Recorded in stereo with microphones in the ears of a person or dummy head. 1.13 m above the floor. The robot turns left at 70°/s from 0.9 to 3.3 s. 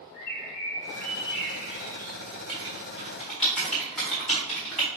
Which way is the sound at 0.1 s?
95° left.